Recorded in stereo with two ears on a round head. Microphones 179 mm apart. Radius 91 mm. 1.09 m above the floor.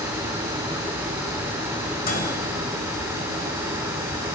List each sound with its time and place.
2.0 s a microwave: 50° left (ahead or behind), 5 m